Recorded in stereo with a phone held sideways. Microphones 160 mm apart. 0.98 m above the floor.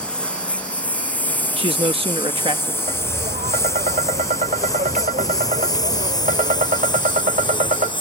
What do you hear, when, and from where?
0.0 s a lawn mower: 5° left (ahead or behind); by 8.0 s 30° left (ahead or behind)
1.6 s a man speaking: 35° right (ahead or behind)
2.9 s tapping: 55° right (ahead or behind)